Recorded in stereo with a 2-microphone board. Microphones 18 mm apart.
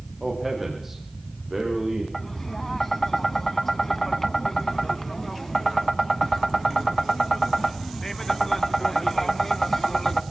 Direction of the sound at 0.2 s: 10° right (ahead or behind).